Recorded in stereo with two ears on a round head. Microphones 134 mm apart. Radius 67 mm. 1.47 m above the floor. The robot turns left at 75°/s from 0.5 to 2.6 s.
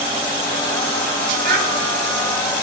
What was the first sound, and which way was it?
A child speaking, 55° right (ahead or behind).